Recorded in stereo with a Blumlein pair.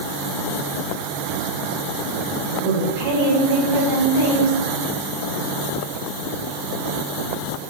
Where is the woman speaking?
55° right, 1.7 m.